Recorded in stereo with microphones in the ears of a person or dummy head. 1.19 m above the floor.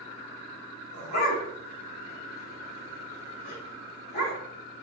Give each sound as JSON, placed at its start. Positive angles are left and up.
{"t": 0.9, "sound": "a dog barking", "side_deg": 60, "distance_m": 2.5}